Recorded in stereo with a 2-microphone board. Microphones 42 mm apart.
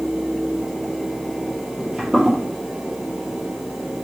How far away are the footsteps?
About 2.0 m.